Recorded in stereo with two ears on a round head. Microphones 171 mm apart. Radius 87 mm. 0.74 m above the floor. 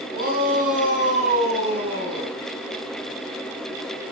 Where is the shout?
55° right (ahead or behind), 7 m; by 2.3 s 30° right (ahead or behind), 8.5 m.